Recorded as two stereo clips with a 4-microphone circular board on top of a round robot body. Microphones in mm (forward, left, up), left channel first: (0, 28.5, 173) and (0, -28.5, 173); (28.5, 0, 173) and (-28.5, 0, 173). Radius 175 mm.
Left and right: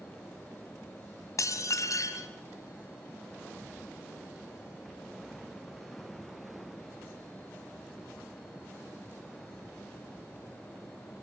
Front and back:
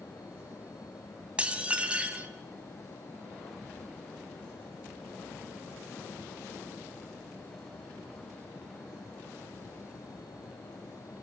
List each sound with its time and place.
1.4 s dishes clattering: 110° left, 2 m